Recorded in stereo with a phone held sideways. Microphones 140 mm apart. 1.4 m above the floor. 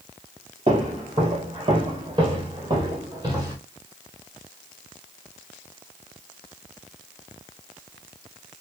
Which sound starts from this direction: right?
Footsteps, at 0.7 s.